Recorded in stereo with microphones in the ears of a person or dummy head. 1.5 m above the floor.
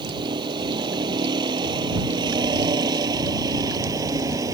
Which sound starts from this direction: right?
A vehicle, at 0.0 s.